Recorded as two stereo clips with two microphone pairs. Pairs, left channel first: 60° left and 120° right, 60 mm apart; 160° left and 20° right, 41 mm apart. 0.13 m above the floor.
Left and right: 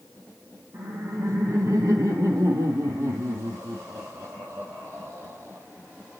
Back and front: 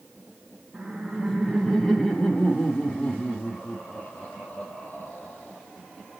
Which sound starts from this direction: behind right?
Laughter, at 0.7 s.